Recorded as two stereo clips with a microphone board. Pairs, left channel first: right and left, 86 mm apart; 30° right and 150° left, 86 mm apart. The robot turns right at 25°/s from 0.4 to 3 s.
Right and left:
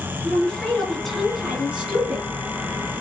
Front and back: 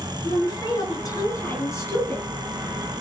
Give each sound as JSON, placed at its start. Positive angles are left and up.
{"t": 0.2, "sound": "a woman speaking", "azimuth_deg": -20, "distance_m": 3.0}